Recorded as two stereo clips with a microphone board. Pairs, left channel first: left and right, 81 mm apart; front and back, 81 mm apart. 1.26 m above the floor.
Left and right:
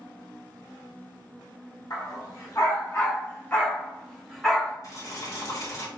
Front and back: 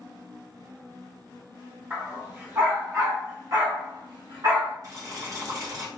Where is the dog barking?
115° left, 1.6 m; by 4.8 s 175° right, 1.5 m.